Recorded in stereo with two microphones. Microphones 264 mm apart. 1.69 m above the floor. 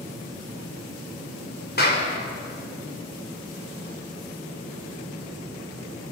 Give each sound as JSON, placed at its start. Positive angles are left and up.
{"t": 1.8, "sound": "a clap", "side_deg": 35, "distance_m": 6.0}